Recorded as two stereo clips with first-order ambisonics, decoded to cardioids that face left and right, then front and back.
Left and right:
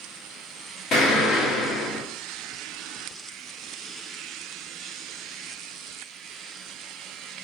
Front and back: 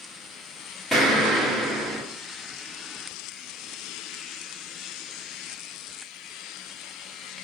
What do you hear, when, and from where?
0.9 s an explosion: 85° left, 1.3 m